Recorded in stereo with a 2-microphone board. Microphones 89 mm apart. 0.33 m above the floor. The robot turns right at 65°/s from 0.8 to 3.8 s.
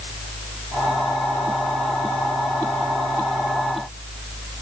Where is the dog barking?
I don't hear a dog barking.